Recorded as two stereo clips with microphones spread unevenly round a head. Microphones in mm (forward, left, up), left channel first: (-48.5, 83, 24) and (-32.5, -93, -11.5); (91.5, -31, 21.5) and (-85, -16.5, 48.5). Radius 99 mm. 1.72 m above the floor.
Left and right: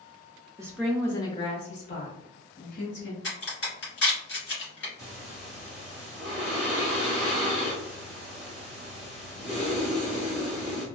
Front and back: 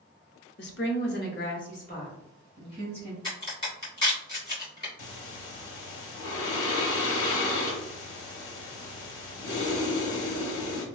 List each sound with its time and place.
0.6 s a woman speaking: 5° right, 0.5 m; by 3.1 s 60° left, 1.5 m
3.2 s a crack: 60° left, 2.0 m
5.0 s breathing: 5° left, 0.7 m